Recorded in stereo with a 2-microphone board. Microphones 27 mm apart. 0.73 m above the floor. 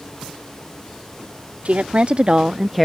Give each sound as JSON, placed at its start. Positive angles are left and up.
{"t": 1.6, "sound": "a woman speaking", "side_deg": -55}